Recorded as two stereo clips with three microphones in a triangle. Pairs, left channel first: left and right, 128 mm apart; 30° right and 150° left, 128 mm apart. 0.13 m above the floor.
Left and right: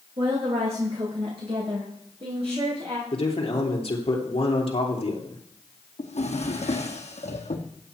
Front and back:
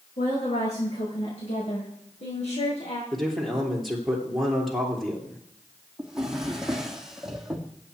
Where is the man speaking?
60° left, 3 m.